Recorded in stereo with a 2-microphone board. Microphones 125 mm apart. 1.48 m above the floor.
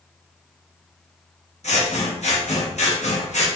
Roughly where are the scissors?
Left.